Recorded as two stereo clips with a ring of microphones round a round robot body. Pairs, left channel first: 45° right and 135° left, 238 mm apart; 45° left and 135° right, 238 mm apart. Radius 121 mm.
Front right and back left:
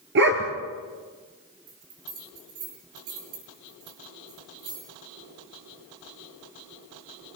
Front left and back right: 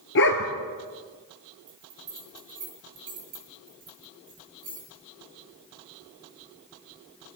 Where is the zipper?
No zipper in this recording.